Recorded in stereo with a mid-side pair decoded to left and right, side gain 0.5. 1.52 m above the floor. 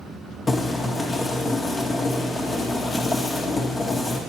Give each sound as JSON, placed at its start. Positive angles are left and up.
{"t": 0.5, "sound": "boiling", "azimuth_deg": 25, "distance_m": 1.7}